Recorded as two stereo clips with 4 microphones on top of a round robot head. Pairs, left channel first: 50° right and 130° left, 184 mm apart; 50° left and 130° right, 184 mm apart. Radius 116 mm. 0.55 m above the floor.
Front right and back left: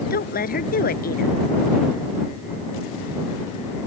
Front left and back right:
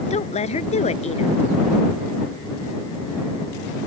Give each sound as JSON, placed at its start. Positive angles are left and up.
{"t": 0.1, "sound": "a woman speaking", "azimuth_deg": -5}